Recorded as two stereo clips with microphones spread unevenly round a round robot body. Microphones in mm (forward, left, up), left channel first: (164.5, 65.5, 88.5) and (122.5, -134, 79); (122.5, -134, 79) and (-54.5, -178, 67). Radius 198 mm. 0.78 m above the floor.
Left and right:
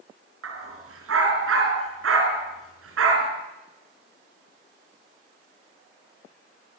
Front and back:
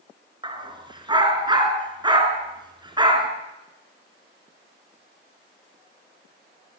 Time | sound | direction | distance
0.4 | a dog barking | 100° right | 4.5 m